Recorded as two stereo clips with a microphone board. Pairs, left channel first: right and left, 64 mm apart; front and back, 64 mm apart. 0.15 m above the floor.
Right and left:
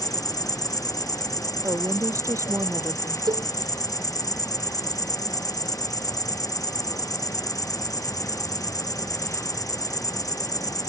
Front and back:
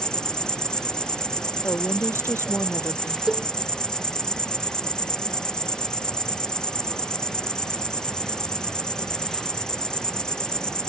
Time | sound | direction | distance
0.0 | an insect | 75° right | ?
1.6 | a woman speaking | 50° left | ?
3.3 | a cowbell | 100° left | ?